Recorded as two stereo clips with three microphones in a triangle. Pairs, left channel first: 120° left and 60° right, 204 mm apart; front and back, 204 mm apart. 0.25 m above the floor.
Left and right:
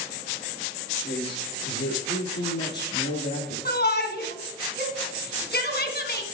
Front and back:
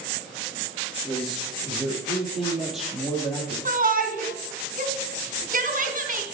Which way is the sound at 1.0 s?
90° left.